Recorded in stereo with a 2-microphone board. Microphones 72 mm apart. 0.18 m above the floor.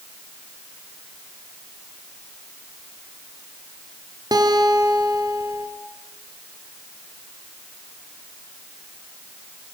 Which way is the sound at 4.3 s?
60° right (ahead or behind).